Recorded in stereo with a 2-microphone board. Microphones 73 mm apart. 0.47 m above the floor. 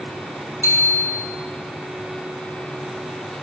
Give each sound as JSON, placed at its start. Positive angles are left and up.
{"t": 0.6, "sound": "a bicycle bell", "side_deg": 40, "distance_m": 5.0}